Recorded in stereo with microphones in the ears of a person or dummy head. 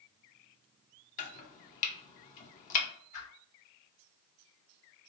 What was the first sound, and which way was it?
Chopping, 40° left (ahead or behind).